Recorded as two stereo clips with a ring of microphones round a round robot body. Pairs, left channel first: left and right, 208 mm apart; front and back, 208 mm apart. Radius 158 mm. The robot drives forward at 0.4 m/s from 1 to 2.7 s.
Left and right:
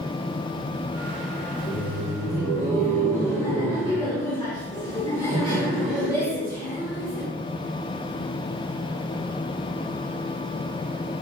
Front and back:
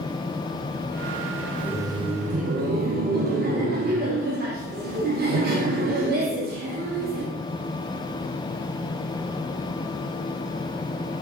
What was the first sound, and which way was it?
Laughter, 95° left.